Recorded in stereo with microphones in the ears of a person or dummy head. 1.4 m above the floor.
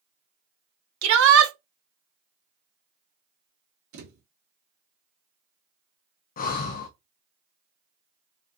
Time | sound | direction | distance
1.0 | a shout | 80° right | 0.8 m
3.9 | a thud | 65° right (ahead or behind) | 1.5 m
6.4 | breathing | 45° left (ahead or behind) | 0.5 m